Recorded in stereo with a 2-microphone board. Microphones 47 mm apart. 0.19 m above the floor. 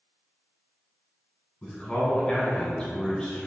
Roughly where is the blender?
No blender in this recording.